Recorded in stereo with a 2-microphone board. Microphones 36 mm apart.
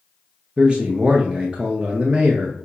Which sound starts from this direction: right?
A man speaking, at 0.6 s.